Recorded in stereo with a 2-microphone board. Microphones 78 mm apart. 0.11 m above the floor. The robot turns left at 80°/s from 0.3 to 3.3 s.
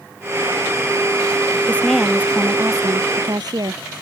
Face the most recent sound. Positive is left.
turn(degrees=-105)